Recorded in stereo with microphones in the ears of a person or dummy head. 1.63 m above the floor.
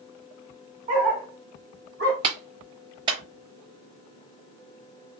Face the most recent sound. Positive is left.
turn(degrees=-25)  # may be behind; listen again after turning